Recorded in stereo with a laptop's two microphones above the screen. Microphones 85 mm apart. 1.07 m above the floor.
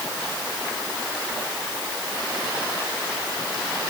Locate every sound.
Only background noise.